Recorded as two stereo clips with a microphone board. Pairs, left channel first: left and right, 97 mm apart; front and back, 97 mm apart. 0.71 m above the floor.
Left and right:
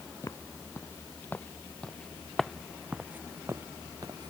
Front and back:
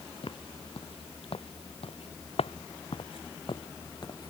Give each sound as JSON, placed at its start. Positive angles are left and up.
{"t": 0.2, "sound": "footsteps", "azimuth_deg": 30}